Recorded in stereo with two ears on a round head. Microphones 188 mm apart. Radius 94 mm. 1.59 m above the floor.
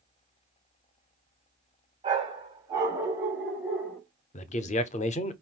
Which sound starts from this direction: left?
A man speaking, at 4.3 s.